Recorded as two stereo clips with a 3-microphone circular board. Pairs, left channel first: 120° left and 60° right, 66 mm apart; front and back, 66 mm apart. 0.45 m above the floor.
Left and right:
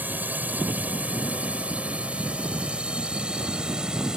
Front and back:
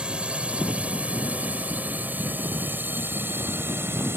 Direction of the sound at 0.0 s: 110° right.